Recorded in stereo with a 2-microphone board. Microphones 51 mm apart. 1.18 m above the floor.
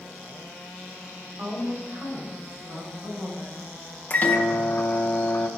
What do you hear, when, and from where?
1.4 s a woman speaking: 80° right, 3.5 m; by 3.6 s 65° right (ahead or behind), 4.5 m
4.1 s a microwave: 35° left (ahead or behind), 0.7 m